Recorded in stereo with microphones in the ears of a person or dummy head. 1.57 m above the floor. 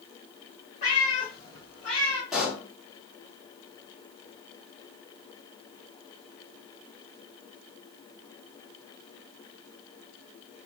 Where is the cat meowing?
30° left (ahead or behind), 1.1 m; by 2.2 s 5° right (ahead or behind), 1.2 m.